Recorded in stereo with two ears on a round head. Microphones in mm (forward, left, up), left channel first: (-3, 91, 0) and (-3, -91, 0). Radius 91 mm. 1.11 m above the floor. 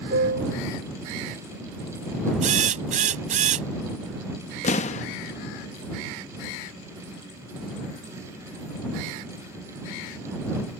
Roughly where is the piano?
Right.